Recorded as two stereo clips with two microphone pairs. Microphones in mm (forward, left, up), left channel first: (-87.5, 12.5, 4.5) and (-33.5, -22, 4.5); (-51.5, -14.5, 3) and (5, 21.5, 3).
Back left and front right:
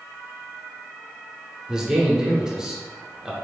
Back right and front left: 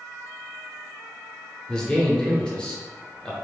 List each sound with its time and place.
1.7 s a man speaking: 100° right, 0.9 m